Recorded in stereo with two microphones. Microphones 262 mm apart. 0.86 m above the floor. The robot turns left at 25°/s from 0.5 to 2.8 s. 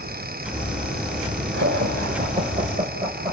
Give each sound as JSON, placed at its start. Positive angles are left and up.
{"t": 1.5, "sound": "laughter", "side_deg": -50, "distance_m": 3.5}